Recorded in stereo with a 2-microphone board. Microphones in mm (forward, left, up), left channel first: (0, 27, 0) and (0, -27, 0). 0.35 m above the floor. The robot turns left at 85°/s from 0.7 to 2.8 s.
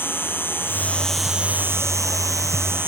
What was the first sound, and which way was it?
An insect, 45° left.